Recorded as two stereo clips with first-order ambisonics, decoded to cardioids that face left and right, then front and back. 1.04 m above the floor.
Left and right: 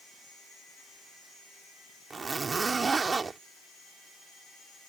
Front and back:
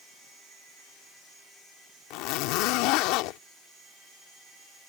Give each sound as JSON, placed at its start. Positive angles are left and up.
{"t": 2.1, "sound": "a zipper", "azimuth_deg": -15}